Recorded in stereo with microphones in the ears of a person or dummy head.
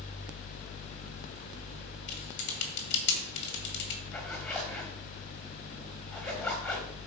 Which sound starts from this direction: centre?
A zipper, at 4.1 s.